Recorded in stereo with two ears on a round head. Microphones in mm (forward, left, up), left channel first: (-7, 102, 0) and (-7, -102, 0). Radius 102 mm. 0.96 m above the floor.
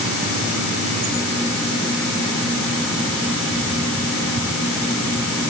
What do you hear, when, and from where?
Only background noise.